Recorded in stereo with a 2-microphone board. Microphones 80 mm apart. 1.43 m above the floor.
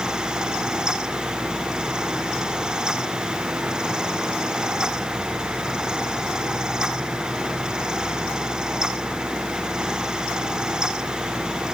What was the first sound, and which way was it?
Only background noise.